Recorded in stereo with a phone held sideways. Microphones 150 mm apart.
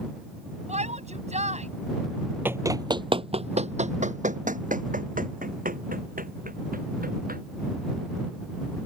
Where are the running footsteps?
15° right (ahead or behind); by 7.4 s 75° right (ahead or behind).